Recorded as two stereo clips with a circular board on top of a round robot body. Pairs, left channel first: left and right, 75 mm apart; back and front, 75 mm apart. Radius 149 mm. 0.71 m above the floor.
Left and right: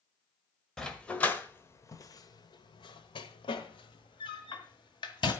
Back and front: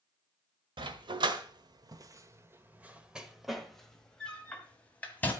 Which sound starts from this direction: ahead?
A dog barking, at 0.8 s.